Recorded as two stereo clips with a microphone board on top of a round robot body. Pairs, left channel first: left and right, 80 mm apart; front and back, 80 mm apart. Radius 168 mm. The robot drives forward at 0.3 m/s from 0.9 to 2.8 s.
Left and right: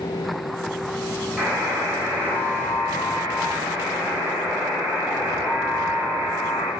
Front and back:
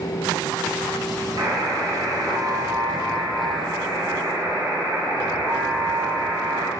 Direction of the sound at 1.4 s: 170° right.